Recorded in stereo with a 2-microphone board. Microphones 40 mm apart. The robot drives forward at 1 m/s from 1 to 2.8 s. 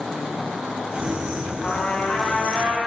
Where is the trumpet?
20° left (ahead or behind), 6 m; by 2.8 s 15° left (ahead or behind), 7 m.